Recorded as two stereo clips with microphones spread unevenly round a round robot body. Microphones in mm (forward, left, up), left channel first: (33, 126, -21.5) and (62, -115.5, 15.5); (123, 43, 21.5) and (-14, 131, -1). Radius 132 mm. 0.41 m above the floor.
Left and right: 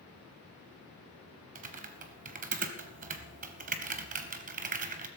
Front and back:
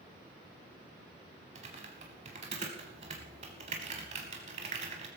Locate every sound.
1.6 s typing on a keyboard: 145° right, 0.7 m